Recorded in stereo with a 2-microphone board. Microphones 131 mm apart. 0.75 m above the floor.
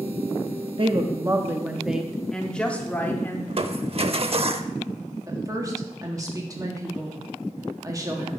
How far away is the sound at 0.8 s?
About 0.7 m.